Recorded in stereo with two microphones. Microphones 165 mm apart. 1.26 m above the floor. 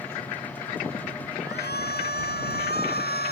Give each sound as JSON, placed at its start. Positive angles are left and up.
{"t": 1.4, "sound": "a shout", "side_deg": 80}